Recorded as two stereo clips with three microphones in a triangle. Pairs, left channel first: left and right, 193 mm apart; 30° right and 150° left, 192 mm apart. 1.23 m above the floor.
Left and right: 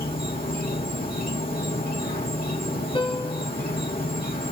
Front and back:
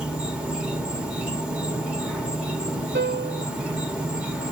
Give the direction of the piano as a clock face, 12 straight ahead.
7 o'clock.